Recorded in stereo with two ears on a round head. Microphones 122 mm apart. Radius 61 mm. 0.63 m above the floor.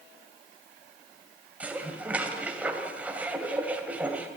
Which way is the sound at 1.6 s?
10° right (ahead or behind).